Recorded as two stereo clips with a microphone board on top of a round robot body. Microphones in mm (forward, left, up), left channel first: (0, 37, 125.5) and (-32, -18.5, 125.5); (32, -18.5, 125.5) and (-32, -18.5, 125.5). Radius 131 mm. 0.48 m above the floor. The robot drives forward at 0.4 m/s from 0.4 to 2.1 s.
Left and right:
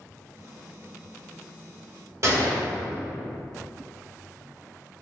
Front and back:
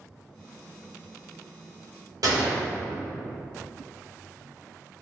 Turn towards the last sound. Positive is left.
turn(degrees=-160)